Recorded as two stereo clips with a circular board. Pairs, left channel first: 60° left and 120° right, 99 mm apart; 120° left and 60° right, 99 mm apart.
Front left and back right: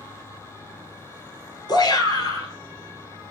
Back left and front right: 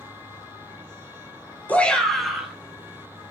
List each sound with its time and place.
1.7 s a shout: 55° left, 1.6 m; by 3.3 s 5° left, 2.5 m